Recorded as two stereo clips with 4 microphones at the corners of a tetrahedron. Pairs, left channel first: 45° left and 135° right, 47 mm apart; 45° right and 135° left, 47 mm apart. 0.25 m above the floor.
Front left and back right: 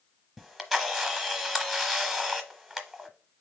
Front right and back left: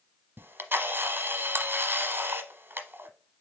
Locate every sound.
0.4 s a camera shutter: 140° left, 0.9 m